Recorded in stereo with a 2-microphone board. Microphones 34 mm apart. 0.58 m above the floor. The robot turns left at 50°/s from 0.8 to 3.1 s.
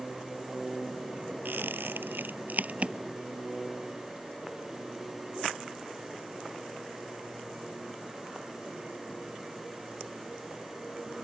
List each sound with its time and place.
1.4 s a squeak: 70° right (ahead or behind); by 3.0 s 35° right (ahead or behind)